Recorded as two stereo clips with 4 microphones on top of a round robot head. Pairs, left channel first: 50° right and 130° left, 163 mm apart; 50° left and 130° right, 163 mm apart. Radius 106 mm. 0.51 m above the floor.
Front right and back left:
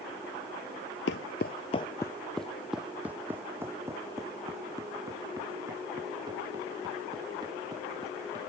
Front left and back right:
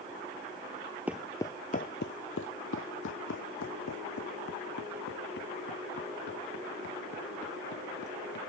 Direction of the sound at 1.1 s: 50° right.